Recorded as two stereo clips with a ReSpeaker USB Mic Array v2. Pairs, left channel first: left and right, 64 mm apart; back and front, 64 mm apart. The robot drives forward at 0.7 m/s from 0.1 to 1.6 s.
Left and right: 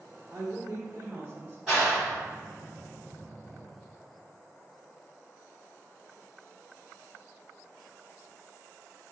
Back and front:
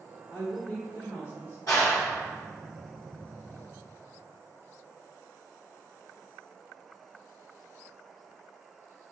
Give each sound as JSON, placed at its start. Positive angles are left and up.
{"t": 0.3, "sound": "a woman speaking", "azimuth_deg": -120, "distance_m": 1.9}
{"t": 1.7, "sound": "a clap", "azimuth_deg": -165, "distance_m": 1.9}